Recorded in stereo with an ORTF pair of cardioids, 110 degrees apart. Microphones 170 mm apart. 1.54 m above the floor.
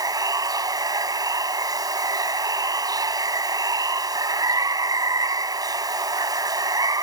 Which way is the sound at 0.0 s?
20° right.